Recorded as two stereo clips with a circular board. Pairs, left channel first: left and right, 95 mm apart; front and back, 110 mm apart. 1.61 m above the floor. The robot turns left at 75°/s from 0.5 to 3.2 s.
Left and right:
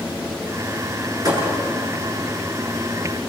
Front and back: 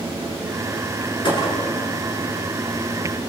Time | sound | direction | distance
1.2 | a thud | 40° right | 8 m